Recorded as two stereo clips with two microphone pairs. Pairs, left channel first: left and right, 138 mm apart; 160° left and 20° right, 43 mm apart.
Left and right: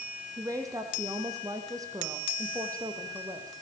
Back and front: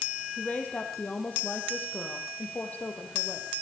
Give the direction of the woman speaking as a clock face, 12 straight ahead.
5 o'clock.